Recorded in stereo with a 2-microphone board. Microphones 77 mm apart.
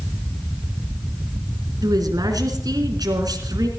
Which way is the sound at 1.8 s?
60° right (ahead or behind).